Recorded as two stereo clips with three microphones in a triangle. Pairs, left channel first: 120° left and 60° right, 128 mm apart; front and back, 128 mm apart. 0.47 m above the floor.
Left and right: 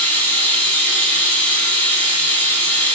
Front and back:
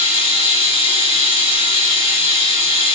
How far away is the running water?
About 0.9 m.